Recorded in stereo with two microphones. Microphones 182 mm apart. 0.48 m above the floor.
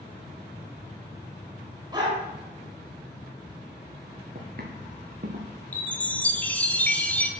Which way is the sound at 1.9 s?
20° right (ahead or behind).